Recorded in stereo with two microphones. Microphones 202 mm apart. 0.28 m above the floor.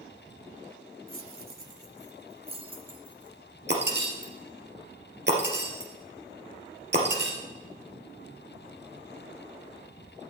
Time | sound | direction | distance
1.1 | keys jangling | 45° right (ahead or behind) | 1.0 m
3.7 | breaking glass | 60° right (ahead or behind) | 2.5 m